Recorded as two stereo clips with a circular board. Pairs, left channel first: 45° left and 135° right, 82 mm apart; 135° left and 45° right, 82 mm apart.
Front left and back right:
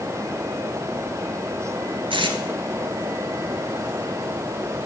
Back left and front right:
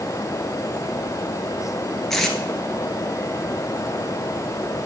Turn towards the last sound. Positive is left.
turn(degrees=-140)